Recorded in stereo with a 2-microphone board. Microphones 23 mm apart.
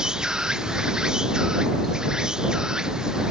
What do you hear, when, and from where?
0.0 s an insect: 30° right (ahead or behind)